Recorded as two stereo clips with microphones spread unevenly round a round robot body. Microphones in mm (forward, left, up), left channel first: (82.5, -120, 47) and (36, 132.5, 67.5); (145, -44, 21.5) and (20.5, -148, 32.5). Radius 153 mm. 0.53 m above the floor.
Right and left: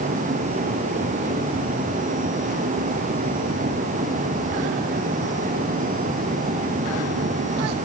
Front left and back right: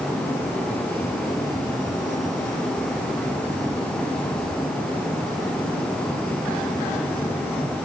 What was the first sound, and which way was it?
Only background noise.